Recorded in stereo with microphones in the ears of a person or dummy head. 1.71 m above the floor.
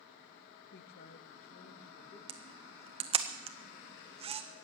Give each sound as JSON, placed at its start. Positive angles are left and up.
{"t": 0.7, "sound": "a man speaking", "side_deg": 60, "distance_m": 1.0}
{"t": 2.3, "sound": "a camera shutter", "side_deg": -30, "distance_m": 0.7}